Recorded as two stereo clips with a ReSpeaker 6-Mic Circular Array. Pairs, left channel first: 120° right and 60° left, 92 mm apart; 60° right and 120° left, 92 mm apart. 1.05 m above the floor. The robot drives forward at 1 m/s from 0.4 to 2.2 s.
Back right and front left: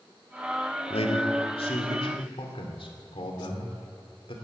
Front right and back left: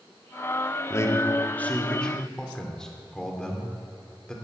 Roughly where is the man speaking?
Behind right.